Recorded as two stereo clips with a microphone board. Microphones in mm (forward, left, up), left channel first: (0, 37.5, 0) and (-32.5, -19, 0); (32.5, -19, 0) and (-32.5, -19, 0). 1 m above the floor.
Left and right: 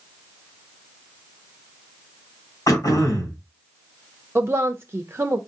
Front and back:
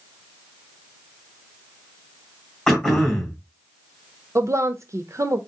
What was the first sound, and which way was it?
Throat clearing, 80° left.